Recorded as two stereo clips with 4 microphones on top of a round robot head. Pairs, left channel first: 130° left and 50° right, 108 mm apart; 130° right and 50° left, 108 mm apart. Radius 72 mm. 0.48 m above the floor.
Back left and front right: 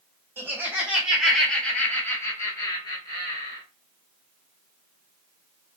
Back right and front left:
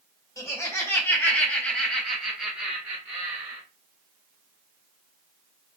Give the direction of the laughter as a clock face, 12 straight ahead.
3 o'clock.